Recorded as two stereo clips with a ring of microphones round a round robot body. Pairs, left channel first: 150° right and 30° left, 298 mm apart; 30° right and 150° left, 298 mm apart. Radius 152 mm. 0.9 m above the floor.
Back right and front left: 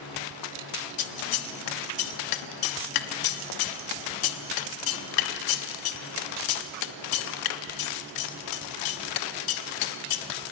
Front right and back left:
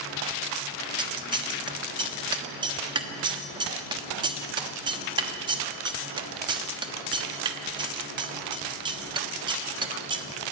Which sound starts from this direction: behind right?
Scissors, at 1.0 s.